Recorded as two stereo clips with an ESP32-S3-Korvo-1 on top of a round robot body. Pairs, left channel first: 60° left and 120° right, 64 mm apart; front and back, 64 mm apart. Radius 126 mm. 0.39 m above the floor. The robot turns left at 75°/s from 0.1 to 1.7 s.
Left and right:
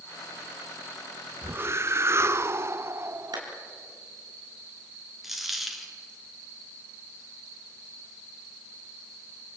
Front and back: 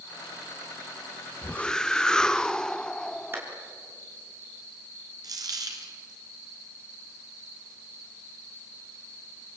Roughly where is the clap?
Behind right.